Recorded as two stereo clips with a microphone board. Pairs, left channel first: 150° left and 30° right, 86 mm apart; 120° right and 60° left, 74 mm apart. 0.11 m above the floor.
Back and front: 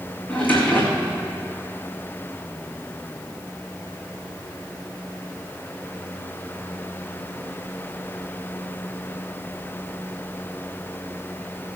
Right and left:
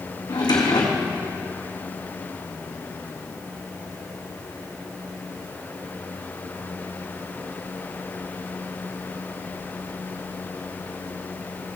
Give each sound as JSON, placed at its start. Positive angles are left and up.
{"t": 0.3, "sound": "a drawer", "azimuth_deg": -140, "distance_m": 2.0}